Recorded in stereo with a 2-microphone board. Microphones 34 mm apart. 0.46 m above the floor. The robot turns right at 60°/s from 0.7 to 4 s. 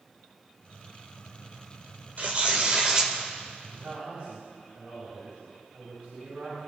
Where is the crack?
No crack in this recording.